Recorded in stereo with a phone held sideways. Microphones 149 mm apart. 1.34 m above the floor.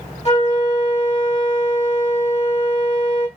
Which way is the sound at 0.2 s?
50° left (ahead or behind).